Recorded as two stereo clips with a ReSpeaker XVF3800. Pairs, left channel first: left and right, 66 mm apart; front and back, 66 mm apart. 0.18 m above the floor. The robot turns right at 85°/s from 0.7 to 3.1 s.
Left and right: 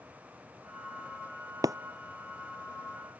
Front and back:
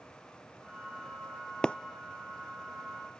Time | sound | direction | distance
1.6 | breaking glass | 80° right | ?